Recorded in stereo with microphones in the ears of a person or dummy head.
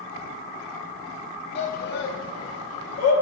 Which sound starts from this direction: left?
A shout, at 1.6 s.